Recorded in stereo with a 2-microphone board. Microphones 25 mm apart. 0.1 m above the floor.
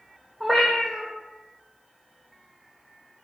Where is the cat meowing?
5° left (ahead or behind), 1.1 m.